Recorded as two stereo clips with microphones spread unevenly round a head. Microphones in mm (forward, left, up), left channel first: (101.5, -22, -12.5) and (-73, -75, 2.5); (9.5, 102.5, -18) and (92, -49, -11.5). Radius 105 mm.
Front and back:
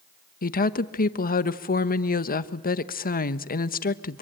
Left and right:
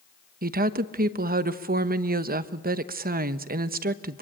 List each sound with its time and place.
0.4 s a woman speaking: 25° right, 1.1 m